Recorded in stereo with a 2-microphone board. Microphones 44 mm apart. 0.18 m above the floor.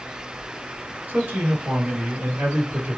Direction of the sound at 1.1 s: 35° right (ahead or behind).